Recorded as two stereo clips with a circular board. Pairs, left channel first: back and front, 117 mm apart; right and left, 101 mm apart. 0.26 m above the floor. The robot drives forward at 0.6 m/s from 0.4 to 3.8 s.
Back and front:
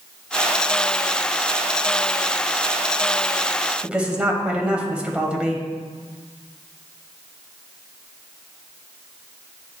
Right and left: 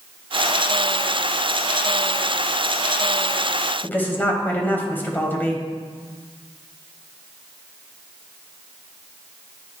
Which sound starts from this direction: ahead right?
A woman speaking, at 3.8 s.